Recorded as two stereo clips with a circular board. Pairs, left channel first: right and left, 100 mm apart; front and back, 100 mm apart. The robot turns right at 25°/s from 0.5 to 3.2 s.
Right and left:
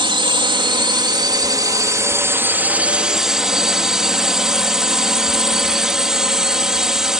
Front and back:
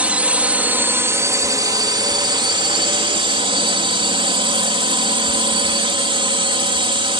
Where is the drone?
105° left; by 7.2 s 175° left.